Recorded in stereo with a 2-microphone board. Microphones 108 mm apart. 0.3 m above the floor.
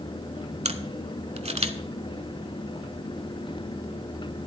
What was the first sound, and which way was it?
A camera shutter, 80° right.